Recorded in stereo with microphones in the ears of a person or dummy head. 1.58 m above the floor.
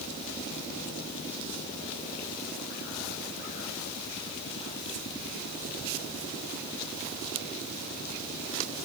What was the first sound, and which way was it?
Only background noise.